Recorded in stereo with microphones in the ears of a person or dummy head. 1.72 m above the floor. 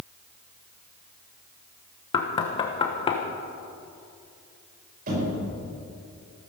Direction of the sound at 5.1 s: 45° right (ahead or behind).